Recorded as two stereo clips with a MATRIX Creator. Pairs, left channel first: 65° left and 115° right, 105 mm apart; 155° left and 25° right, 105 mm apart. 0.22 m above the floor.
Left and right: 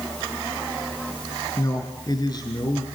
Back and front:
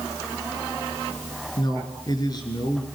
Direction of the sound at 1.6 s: 115° left.